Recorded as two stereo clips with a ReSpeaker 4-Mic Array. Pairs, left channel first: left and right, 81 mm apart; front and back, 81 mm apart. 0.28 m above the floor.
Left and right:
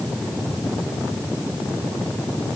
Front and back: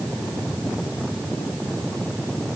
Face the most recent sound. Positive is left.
No sound to turn to.